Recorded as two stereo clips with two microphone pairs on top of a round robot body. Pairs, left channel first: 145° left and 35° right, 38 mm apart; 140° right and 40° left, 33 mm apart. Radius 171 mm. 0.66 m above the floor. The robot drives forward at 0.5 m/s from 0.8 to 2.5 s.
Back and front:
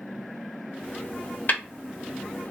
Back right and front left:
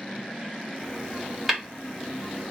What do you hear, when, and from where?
1.5 s tapping: 130° left, 1.6 m